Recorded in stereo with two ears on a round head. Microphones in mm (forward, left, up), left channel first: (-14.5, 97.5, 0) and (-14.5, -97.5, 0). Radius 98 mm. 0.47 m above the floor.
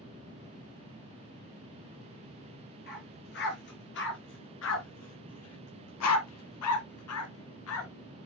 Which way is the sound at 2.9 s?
45° left (ahead or behind).